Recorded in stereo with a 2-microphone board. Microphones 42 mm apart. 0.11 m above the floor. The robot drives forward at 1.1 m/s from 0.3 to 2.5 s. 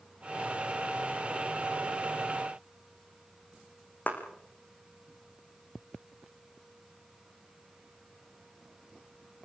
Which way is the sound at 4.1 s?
40° left (ahead or behind).